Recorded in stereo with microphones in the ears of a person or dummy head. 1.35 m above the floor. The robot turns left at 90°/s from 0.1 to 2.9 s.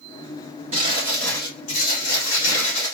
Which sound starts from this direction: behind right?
Crumpling, at 0.7 s.